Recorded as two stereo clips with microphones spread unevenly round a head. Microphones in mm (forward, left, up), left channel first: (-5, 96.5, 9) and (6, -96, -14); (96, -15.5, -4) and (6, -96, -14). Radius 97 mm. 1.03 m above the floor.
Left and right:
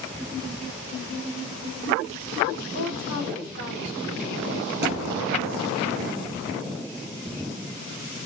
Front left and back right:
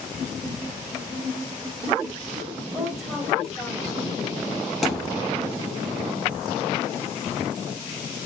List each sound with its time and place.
2.7 s a woman speaking: 45° right, 4 m
4.8 s a thud: 45° right, 5 m